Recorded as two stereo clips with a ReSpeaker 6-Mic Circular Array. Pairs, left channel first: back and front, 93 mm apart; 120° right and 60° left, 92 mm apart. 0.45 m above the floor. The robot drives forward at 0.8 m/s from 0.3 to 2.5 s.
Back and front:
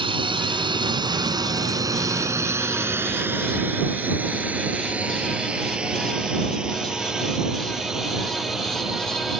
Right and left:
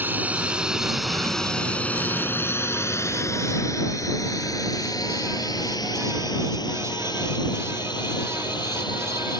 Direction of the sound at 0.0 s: 10° right.